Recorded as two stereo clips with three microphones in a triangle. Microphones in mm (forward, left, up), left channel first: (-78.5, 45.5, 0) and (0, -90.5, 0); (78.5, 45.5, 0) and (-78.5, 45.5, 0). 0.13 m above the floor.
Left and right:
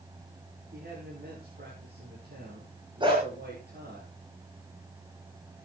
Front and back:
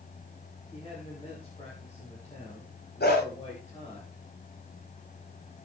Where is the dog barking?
Straight ahead, 6.5 m.